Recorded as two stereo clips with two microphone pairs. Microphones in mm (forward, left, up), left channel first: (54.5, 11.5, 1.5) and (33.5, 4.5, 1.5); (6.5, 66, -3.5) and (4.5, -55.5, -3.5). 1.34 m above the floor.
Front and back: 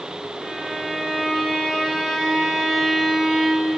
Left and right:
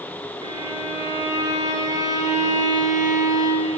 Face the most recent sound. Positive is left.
turn(degrees=-90)